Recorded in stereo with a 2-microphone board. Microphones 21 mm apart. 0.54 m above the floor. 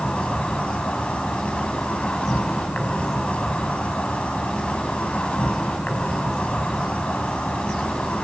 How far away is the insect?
About 5.5 m.